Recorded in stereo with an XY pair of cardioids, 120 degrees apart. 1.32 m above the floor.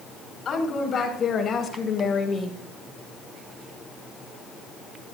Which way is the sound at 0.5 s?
40° left.